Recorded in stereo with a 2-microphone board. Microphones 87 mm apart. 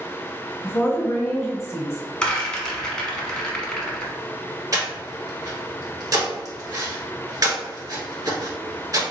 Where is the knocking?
I don't hear knocking.